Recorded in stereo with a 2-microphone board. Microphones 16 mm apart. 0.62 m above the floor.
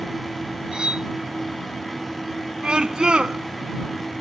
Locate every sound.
0.7 s cutlery clinking: 65° right (ahead or behind)
2.6 s a scream: 85° right